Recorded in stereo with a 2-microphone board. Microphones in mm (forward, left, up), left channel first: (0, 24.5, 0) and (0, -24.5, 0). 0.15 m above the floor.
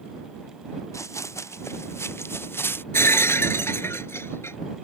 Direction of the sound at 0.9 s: 80° left.